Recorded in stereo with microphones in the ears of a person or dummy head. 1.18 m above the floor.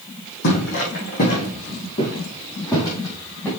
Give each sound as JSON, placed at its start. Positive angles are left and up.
{"t": 0.4, "sound": "footsteps", "side_deg": 55, "distance_m": 3.5}